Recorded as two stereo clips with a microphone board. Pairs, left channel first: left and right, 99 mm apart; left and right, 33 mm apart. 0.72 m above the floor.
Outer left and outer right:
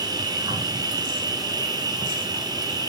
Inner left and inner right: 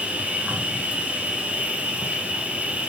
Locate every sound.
0.0 s an insect: 40° right (ahead or behind), 2 m